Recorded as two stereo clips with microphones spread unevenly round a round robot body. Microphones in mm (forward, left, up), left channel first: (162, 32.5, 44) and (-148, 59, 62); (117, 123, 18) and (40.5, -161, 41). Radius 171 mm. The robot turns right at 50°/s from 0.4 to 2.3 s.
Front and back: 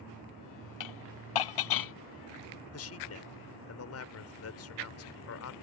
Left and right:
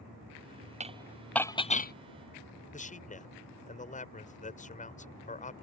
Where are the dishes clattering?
40° right; by 1.9 s 20° left.